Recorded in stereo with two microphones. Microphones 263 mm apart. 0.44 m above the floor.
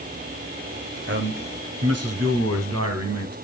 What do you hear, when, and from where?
1.1 s a man speaking: 45° right (ahead or behind), 1.7 m; by 3.4 s 75° right (ahead or behind), 3 m